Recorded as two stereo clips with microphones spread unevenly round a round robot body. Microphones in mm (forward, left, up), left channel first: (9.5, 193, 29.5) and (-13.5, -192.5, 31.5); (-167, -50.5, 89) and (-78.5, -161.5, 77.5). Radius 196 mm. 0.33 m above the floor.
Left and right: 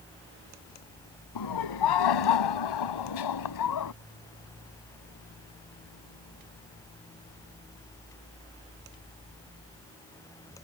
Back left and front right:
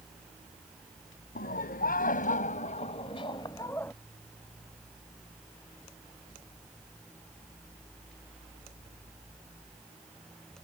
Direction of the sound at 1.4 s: 120° left.